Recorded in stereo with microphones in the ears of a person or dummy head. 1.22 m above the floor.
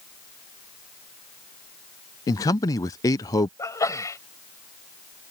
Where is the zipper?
No zipper in this recording.